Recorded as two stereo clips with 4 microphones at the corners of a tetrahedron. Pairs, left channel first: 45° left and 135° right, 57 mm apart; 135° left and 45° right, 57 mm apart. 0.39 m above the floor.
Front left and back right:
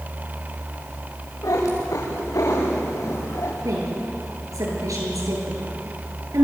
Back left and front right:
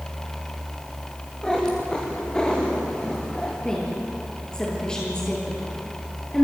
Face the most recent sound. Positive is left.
turn(degrees=-150)